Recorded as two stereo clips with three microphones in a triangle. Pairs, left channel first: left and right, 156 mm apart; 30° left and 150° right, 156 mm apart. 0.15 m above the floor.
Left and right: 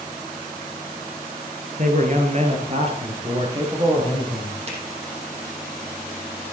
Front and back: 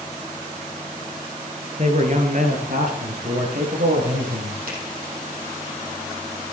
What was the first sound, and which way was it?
A man speaking, 115° right.